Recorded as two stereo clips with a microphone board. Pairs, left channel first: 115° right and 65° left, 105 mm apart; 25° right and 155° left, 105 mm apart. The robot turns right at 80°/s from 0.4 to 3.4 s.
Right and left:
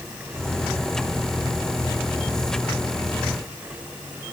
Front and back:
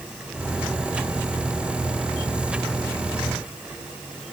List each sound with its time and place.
Only background noise.